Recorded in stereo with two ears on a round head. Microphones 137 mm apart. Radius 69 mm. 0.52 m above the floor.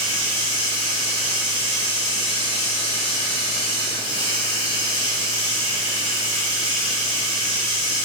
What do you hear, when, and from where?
0.0 s running water: 45° left (ahead or behind), 1.5 m